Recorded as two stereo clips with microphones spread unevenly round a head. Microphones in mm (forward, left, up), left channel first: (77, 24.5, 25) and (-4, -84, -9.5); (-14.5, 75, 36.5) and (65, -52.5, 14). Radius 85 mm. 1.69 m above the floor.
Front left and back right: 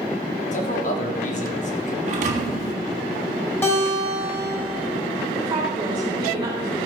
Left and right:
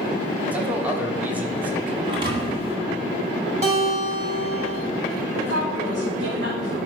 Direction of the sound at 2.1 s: 120° right.